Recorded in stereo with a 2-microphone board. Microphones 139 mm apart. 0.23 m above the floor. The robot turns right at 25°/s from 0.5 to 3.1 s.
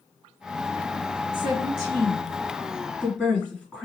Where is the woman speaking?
45° right (ahead or behind), 2 m; by 3.8 s 10° right (ahead or behind), 2 m.